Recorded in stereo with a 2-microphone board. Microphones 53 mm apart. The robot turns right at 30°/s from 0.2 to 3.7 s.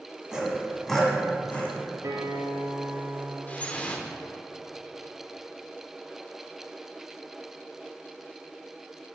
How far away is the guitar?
About 2 m.